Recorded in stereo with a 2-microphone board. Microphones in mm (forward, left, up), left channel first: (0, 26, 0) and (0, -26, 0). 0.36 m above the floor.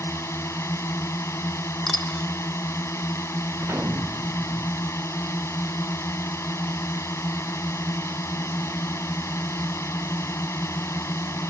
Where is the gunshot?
45° right (ahead or behind).